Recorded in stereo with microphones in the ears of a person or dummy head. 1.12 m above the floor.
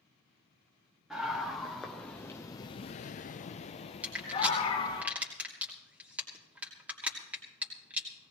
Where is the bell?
No bell in this recording.